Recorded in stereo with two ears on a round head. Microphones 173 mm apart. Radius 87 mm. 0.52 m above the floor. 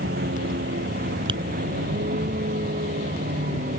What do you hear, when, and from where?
0.0 s a vehicle: 55° right (ahead or behind); by 3.8 s 45° right (ahead or behind)
1.3 s tapping: 25° right (ahead or behind)